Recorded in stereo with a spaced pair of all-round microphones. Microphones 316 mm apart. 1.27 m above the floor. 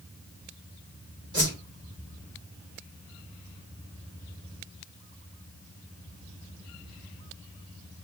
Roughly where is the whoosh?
Right.